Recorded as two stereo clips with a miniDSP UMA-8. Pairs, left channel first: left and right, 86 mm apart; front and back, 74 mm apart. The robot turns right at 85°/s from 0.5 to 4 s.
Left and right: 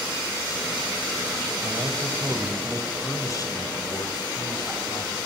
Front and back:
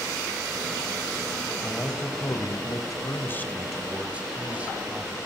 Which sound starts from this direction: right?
A man speaking, at 1.6 s.